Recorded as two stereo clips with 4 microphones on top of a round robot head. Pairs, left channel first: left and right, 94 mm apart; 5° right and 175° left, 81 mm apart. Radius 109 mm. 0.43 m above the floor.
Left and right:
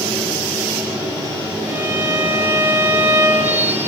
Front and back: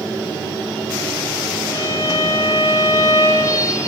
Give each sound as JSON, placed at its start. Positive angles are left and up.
{"t": 1.7, "sound": "a violin", "azimuth_deg": -30, "distance_m": 1.5}